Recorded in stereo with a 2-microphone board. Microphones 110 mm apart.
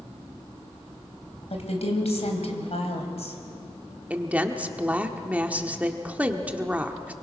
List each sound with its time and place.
1.5 s a woman speaking: 70° left (ahead or behind), 3.5 m
4.1 s a woman speaking: 15° right (ahead or behind), 1.4 m